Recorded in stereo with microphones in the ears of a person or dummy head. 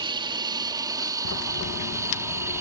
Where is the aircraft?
25° right (ahead or behind); by 2.6 s 10° right (ahead or behind).